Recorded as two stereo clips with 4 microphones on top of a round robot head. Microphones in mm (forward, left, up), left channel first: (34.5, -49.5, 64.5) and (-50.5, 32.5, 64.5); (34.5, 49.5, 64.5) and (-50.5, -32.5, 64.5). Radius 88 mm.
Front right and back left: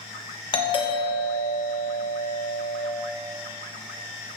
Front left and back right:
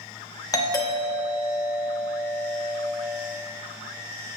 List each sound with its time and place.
0.5 s a doorbell: 10° right, 1.2 m